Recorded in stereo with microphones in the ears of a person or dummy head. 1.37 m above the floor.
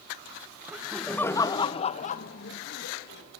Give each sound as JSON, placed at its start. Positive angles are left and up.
{"t": 0.7, "sound": "laughter", "side_deg": -10, "distance_m": 1.5}